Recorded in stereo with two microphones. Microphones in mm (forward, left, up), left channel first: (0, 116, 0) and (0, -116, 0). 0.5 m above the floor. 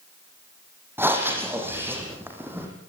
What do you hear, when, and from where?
1.0 s breathing: 10° right (ahead or behind), 6 m